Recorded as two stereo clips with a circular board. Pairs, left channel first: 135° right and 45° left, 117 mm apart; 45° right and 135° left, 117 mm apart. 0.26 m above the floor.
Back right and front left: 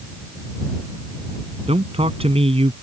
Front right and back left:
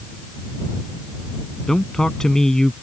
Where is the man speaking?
40° left.